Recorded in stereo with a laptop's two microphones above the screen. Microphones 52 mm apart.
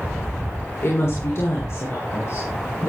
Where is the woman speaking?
55° left (ahead or behind), 3.5 m; by 2.9 s 60° left (ahead or behind), 4.5 m.